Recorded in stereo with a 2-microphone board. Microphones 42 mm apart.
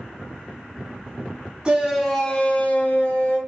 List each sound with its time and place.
1.6 s a shout: 20° right (ahead or behind), 0.5 m; by 3.4 s 60° left (ahead or behind), 1.0 m